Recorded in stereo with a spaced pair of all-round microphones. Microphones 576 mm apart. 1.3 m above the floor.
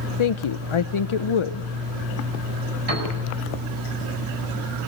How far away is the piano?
About 8 m.